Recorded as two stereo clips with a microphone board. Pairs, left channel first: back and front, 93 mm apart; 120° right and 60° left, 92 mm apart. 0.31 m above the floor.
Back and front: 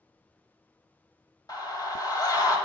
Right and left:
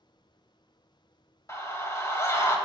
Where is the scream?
165° right, 2 m.